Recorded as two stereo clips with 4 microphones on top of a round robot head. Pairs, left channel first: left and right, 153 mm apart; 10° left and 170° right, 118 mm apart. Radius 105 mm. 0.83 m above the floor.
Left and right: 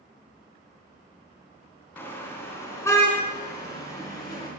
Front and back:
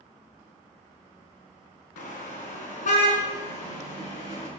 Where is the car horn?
15° left, 4 m; by 4.5 s 25° left, 6.5 m.